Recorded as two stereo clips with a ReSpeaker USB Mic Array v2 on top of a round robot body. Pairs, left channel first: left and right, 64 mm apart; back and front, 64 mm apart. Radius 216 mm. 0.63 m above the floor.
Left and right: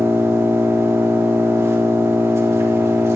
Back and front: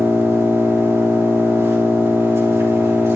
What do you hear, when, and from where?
0.0 s an engine running: 45° right, 3 m